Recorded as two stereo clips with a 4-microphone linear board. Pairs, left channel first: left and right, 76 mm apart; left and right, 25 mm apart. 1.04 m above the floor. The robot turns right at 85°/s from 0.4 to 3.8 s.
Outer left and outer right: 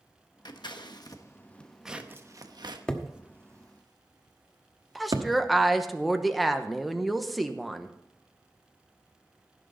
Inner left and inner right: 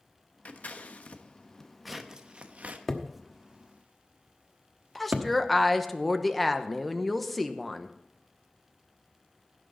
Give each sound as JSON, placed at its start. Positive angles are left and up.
{"t": 0.5, "sound": "scissors", "side_deg": 65, "distance_m": 1.0}
{"t": 2.9, "sound": "hammering", "side_deg": 10, "distance_m": 1.2}
{"t": 5.0, "sound": "a woman speaking", "side_deg": 0, "distance_m": 0.9}